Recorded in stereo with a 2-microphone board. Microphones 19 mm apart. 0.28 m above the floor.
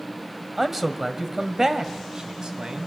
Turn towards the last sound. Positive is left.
turn(degrees=-50)  # may be behind; listen again after turning